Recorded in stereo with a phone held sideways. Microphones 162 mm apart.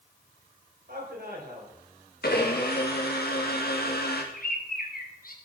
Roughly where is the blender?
Left.